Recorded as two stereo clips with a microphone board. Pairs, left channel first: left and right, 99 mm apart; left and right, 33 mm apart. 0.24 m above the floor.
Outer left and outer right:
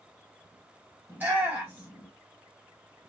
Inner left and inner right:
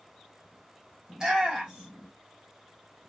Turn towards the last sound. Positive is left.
turn(degrees=-20)  # may be behind; listen again after turning